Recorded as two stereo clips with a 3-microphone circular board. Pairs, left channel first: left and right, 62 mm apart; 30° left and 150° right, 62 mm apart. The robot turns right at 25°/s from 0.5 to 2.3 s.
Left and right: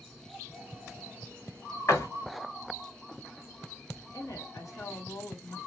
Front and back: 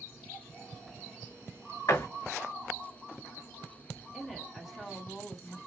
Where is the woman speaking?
125° left, 1.1 m.